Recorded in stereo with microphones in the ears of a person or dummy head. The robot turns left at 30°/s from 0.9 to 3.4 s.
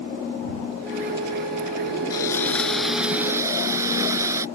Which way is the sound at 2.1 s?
25° left.